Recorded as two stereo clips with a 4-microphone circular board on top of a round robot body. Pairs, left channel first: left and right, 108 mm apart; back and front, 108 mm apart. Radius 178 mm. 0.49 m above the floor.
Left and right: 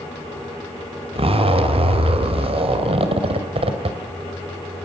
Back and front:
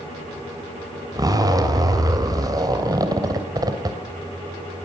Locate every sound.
1.1 s a zipper: 55° right, 2.5 m